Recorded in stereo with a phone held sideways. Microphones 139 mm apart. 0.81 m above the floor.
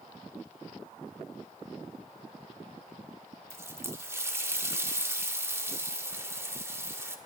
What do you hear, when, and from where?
3.5 s a running tap: 20° right (ahead or behind), 1.3 m